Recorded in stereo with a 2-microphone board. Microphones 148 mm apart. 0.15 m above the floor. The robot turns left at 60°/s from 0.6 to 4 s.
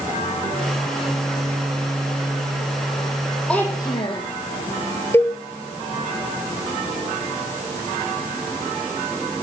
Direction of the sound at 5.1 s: 15° left (ahead or behind).